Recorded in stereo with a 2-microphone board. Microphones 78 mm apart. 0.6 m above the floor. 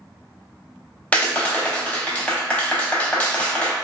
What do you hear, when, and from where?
1.1 s a clap: 15° left (ahead or behind), 0.5 m